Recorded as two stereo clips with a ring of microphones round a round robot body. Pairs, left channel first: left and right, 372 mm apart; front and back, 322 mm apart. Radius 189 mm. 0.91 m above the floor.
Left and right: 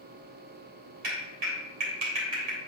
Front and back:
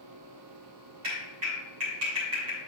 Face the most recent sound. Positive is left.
turn(degrees=-135)